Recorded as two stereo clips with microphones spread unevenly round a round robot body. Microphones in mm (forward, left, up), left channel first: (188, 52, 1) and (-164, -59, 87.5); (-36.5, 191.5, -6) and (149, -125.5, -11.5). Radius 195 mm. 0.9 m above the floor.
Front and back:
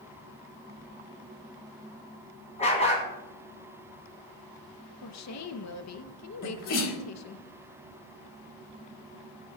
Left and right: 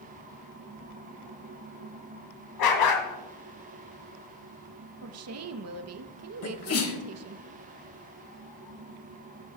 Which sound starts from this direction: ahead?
A woman speaking, at 5.0 s.